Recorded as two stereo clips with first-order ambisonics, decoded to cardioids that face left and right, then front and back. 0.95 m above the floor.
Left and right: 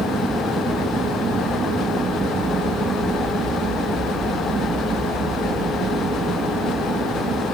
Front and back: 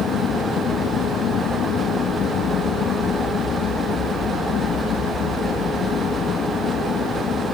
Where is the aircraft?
30° right; by 7.5 s 40° right.